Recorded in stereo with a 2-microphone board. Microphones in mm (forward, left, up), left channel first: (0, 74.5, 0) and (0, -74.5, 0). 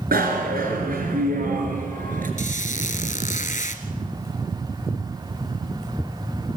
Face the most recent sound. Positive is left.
turn(degrees=60)  # may be behind; listen again after turning